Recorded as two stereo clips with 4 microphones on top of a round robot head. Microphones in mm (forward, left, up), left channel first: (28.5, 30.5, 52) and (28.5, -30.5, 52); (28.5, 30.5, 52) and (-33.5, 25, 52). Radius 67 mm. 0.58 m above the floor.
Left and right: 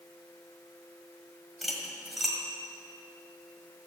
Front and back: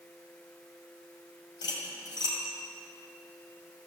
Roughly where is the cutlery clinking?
Ahead.